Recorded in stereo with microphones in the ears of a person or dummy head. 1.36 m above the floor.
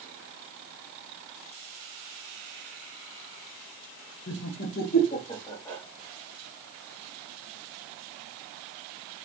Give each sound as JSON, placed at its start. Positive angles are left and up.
{"t": 4.3, "sound": "laughter", "side_deg": 80, "distance_m": 1.4}